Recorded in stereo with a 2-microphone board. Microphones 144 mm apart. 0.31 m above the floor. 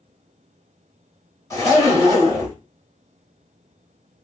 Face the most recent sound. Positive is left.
turn(degrees=25)  # may be behind; listen again after turning